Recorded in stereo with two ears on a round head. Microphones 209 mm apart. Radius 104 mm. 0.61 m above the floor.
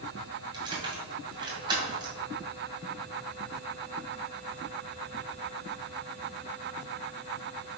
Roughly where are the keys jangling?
Centre.